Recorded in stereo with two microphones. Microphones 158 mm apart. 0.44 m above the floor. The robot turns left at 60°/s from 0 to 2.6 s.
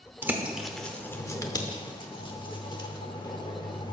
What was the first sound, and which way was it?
A bird, 15° right (ahead or behind).